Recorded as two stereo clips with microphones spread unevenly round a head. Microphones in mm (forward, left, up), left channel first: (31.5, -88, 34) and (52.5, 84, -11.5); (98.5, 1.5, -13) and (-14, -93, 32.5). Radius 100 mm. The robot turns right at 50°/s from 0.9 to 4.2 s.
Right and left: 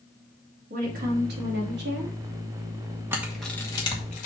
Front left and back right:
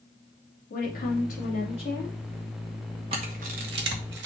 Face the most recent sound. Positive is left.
turn(degrees=-155)